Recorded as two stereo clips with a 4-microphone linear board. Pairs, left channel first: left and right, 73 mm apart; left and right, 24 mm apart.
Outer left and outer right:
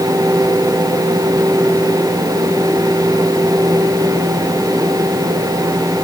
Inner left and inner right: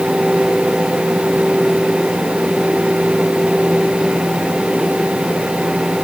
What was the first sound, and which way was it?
Only background noise.